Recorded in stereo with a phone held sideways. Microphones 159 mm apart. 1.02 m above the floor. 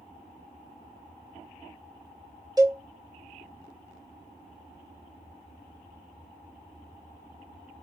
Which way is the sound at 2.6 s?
25° right (ahead or behind).